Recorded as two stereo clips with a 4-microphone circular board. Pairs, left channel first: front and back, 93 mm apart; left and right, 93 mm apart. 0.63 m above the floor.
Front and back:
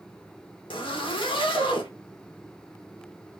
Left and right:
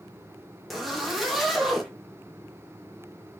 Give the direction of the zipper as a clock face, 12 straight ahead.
12 o'clock.